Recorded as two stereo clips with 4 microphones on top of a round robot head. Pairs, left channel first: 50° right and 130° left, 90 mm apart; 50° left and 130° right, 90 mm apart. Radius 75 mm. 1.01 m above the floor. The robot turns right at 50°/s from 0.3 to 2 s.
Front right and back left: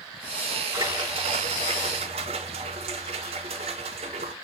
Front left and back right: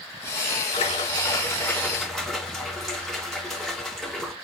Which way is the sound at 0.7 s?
75° left.